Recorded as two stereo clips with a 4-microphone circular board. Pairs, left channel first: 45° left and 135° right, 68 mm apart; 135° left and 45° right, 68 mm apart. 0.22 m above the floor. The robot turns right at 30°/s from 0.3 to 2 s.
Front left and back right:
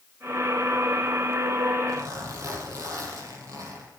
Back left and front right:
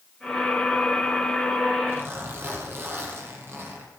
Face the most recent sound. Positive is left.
turn(degrees=-100)